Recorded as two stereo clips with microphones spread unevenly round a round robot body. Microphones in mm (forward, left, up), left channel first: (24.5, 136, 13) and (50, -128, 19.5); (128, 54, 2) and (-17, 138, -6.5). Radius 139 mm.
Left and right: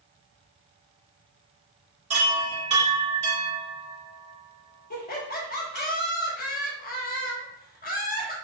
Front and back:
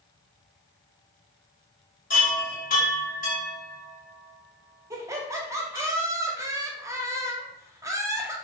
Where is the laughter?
100° left, 0.7 m.